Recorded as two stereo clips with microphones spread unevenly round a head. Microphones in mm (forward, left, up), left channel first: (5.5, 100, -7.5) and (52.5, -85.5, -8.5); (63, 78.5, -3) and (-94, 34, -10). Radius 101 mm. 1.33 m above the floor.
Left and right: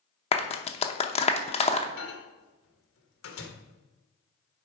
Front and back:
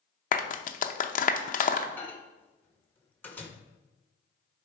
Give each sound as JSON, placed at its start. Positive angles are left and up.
{"t": 0.3, "sound": "a clap", "azimuth_deg": 50, "distance_m": 0.8}
{"t": 2.0, "sound": "a microwave", "azimuth_deg": 95, "distance_m": 1.3}